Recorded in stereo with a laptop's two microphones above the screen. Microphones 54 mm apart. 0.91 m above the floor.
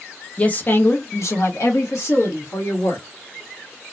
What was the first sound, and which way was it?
A woman speaking, 25° left (ahead or behind).